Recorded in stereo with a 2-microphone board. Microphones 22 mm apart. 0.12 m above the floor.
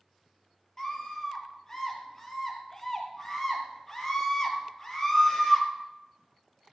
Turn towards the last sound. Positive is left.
turn(degrees=25)  # may be behind; listen again after turning